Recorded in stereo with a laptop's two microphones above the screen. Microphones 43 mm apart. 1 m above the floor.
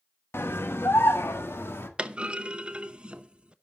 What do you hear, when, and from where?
0.3 s a scream: 75° left (ahead or behind), 1.1 m; by 1.9 s 80° left, 1.9 m
2.0 s a clunk: 25° right (ahead or behind), 0.7 m